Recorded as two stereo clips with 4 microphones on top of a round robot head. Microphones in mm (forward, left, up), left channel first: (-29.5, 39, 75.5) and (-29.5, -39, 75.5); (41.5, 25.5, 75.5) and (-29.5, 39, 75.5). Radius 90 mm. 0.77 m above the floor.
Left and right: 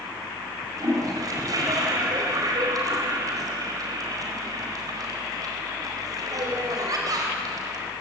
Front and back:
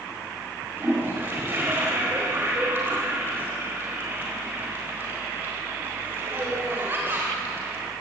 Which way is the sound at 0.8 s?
125° right.